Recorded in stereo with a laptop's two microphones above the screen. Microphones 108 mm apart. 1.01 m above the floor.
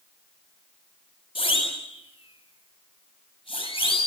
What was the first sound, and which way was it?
A siren, 55° left (ahead or behind).